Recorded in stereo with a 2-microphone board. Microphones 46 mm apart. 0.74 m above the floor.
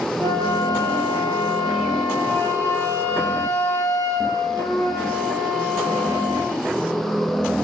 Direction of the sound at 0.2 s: 50° left (ahead or behind).